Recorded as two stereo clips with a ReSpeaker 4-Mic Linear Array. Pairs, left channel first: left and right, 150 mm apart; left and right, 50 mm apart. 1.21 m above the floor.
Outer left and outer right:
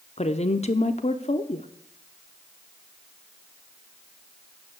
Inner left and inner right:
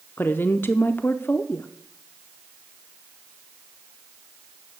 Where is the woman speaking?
45° left (ahead or behind), 0.6 m.